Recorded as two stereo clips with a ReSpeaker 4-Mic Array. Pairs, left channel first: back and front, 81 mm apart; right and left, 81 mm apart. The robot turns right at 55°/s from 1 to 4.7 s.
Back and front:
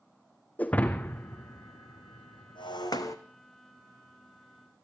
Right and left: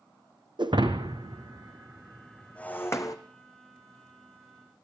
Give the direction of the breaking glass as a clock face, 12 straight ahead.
8 o'clock.